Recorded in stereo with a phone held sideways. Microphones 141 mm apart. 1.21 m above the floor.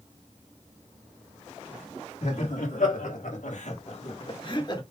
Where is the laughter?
65° left (ahead or behind), 1.7 m; by 4.8 s 30° left (ahead or behind), 1.8 m.